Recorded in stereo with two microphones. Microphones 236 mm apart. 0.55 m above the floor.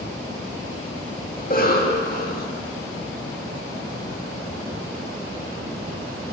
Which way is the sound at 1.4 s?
40° left (ahead or behind).